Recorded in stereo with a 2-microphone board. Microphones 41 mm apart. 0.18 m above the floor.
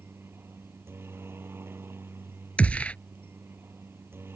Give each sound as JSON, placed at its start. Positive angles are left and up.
{"t": 0.0, "sound": "a helicopter", "side_deg": -70}
{"t": 2.6, "sound": "a gunshot", "side_deg": 35}